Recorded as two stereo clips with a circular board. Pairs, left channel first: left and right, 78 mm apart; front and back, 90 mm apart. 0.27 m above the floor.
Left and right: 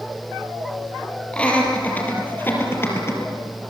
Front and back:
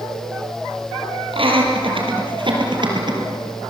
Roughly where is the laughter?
Behind.